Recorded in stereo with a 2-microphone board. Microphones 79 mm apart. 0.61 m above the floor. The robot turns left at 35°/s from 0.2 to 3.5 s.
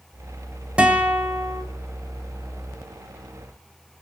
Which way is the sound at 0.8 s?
15° right (ahead or behind).